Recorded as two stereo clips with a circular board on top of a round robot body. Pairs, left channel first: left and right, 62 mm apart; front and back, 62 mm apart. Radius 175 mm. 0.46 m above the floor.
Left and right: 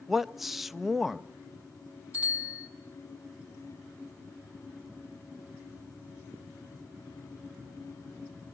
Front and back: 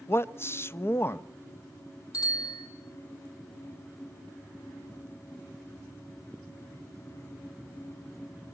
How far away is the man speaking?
About 1.0 m.